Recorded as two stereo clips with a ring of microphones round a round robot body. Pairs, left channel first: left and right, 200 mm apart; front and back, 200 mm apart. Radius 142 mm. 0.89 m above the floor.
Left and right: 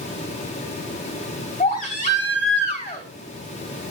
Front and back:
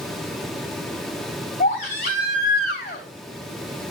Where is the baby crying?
35° left, 3.5 m.